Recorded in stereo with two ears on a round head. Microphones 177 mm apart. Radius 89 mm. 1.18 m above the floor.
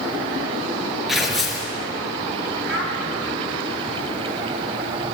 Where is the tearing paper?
Centre (ahead or behind), 4.5 m.